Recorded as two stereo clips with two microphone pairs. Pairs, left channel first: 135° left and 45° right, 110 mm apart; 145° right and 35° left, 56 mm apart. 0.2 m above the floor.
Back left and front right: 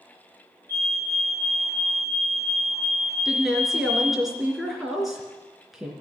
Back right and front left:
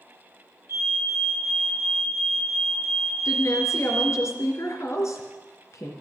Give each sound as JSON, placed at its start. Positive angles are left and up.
{"t": 0.7, "sound": "a fire alarm", "azimuth_deg": 70, "distance_m": 8.0}
{"t": 3.2, "sound": "a woman speaking", "azimuth_deg": -130, "distance_m": 3.0}